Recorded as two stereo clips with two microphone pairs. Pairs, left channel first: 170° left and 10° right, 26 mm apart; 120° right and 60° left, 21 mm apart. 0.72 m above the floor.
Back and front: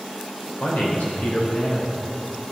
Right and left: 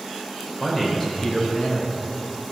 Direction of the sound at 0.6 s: 170° left.